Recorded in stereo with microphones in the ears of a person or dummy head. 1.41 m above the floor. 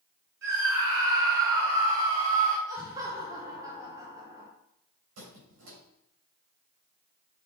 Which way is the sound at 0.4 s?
55° right (ahead or behind).